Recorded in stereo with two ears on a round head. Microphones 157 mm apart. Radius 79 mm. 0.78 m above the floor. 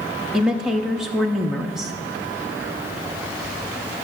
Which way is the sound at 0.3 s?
Centre (ahead or behind).